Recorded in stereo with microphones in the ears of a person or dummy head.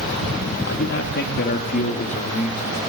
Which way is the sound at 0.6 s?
60° left (ahead or behind).